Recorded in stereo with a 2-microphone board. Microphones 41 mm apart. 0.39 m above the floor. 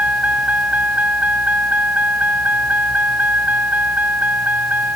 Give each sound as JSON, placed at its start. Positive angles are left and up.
{"t": 0.0, "sound": "a vehicle", "side_deg": -40}